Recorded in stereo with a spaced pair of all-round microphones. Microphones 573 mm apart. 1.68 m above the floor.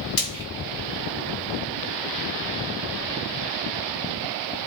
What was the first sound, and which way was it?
Frying, 75° left (ahead or behind).